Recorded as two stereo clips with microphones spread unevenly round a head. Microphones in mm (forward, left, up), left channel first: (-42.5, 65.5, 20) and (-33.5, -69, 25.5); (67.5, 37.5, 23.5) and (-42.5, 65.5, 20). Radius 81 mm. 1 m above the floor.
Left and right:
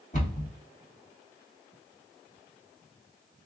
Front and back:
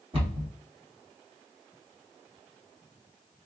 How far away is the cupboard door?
About 1.9 m.